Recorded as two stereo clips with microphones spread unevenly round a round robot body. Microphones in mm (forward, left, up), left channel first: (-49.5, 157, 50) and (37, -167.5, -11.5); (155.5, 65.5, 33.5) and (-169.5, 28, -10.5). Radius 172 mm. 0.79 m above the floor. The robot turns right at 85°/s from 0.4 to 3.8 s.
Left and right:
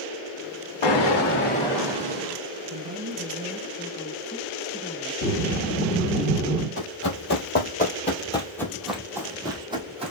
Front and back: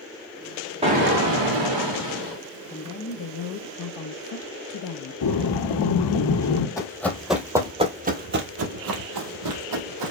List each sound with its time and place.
0.8 s an explosion: 115° left, 1.6 m; by 2.4 s 110° right, 1.6 m
2.7 s a woman speaking: 65° right, 0.7 m; by 6.2 s 25° left, 0.7 m
5.2 s breathing: 40° left, 2.5 m
6.8 s running footsteps: 75° left, 1.2 m; by 10.1 s 155° right, 1.4 m